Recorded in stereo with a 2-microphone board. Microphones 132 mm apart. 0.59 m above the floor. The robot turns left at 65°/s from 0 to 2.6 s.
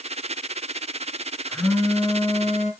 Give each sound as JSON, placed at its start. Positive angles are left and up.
{"t": 1.5, "sound": "a phone buzzing", "azimuth_deg": 180, "distance_m": 2.0}